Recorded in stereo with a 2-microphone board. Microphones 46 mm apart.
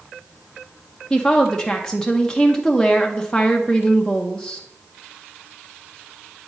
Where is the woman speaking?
15° left (ahead or behind), 0.8 m.